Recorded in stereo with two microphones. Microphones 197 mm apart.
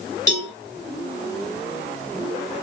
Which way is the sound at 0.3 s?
20° left (ahead or behind).